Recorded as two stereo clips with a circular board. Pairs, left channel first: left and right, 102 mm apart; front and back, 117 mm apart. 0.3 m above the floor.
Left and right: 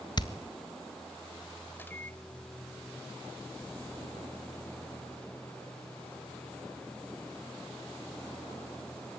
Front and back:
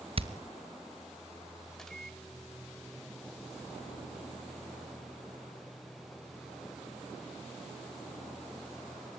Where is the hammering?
140° left, 1.6 m.